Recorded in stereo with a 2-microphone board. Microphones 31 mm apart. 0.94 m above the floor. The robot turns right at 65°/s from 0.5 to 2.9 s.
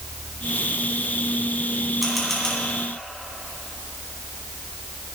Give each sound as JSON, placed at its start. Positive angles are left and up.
{"t": 2.0, "sound": "a camera shutter", "side_deg": -5, "distance_m": 3.0}